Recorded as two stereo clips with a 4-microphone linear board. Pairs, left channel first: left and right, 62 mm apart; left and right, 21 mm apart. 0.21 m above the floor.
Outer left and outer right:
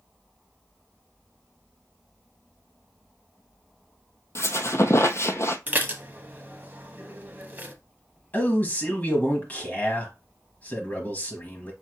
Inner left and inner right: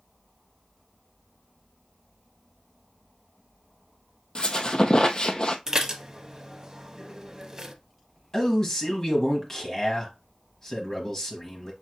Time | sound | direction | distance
4.3 | a squeak | 45° left (ahead or behind) | 0.6 m
5.7 | dishes clattering | 30° right (ahead or behind) | 0.7 m
8.3 | a man speaking | 25° left (ahead or behind) | 1.0 m